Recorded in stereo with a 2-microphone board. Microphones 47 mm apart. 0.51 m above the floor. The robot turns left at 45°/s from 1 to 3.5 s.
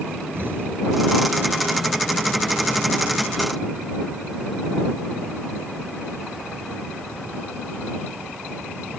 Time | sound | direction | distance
0.3 | an explosion | 50° right (ahead or behind) | ?